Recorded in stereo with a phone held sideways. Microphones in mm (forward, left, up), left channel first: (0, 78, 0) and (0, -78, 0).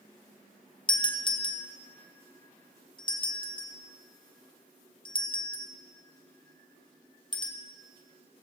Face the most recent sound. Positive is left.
turn(degrees=30)  # may be behind; listen again after turning